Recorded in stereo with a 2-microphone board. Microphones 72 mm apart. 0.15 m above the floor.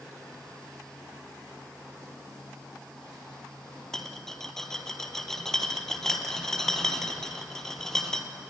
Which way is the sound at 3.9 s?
5° left (ahead or behind).